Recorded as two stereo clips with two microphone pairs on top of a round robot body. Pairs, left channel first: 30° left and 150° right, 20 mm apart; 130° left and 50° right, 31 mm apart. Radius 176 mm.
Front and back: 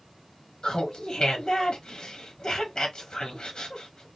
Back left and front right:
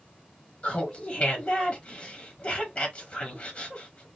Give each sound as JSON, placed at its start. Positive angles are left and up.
{"t": 0.6, "sound": "laughter", "azimuth_deg": 85, "distance_m": 1.4}